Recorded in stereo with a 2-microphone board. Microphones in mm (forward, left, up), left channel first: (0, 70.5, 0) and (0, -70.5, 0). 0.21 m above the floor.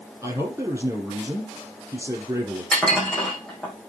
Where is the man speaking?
20° right (ahead or behind), 7 m.